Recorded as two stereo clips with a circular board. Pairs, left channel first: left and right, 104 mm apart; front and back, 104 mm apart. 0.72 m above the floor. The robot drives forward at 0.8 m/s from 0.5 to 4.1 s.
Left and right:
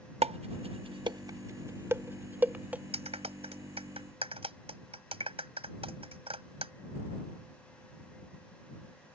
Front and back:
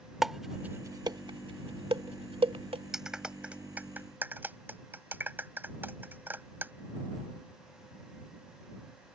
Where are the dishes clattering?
95° right; by 2.8 s 165° right.